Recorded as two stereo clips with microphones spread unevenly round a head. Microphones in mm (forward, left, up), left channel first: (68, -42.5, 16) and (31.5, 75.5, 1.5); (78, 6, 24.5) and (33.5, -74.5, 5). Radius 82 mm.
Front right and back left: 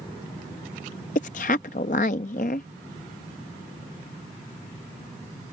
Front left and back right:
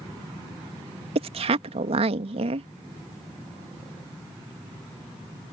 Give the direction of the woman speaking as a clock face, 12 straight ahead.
4 o'clock.